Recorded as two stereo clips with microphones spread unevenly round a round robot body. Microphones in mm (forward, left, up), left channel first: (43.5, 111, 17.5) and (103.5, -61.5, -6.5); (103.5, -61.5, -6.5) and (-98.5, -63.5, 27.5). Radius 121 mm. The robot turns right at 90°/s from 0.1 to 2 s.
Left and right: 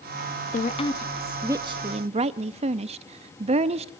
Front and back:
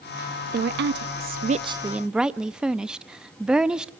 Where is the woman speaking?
145° left, 0.5 m; by 3.9 s 85° right, 0.5 m.